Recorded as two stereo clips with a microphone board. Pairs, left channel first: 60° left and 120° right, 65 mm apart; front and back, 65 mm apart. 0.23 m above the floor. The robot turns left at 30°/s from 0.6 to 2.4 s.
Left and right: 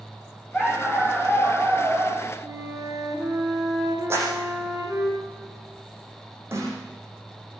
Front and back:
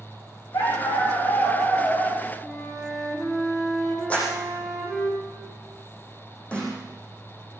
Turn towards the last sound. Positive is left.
turn(degrees=-70)